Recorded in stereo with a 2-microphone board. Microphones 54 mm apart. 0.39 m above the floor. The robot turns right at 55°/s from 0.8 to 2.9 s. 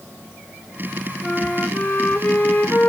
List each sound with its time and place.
1.2 s a flute: 15° left, 0.6 m; by 2.9 s 105° left, 0.6 m